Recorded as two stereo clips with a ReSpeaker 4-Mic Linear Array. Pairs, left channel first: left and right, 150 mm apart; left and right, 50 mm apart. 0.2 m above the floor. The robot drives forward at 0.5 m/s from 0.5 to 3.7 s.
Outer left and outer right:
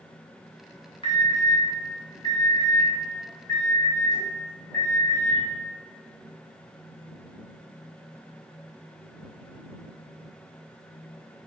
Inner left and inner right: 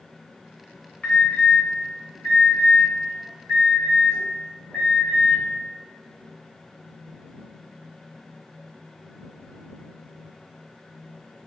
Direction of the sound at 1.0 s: 35° left (ahead or behind).